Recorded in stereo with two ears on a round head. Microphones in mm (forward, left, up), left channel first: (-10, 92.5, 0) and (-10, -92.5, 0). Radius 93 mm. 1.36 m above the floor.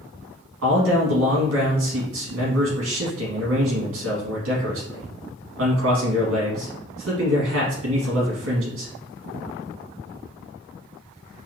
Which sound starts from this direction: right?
A man speaking, at 0.6 s.